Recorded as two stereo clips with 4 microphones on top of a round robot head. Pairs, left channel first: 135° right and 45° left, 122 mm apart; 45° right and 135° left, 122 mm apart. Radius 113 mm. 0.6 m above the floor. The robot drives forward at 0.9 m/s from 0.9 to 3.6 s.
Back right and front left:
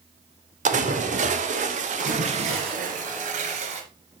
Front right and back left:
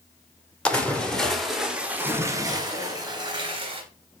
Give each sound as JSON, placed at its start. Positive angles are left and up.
{"t": 0.7, "sound": "a splash", "azimuth_deg": 35, "distance_m": 2.0}
{"t": 2.0, "sound": "a splash", "azimuth_deg": 55, "distance_m": 3.0}